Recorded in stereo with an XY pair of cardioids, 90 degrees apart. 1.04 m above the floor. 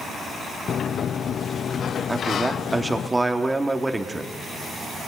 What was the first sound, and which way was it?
A sliding door, 60° left.